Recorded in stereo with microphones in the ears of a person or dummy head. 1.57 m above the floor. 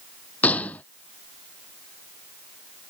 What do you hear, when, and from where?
0.4 s a gunshot: 5° left (ahead or behind)